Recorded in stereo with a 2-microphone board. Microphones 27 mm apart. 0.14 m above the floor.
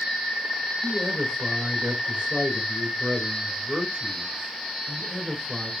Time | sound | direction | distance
0.8 | a man speaking | 40° right (ahead or behind) | 1.7 m